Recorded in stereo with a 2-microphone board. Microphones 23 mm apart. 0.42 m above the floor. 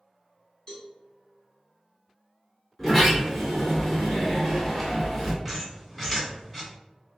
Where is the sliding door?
10° left (ahead or behind), 1.7 m.